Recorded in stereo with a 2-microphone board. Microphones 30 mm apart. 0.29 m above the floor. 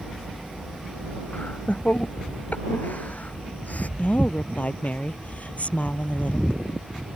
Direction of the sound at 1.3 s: 60° left (ahead or behind).